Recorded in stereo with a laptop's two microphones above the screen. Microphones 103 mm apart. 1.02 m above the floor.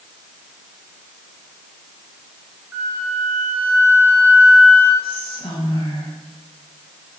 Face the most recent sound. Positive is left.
turn(degrees=50)  # may be behind; listen again after turning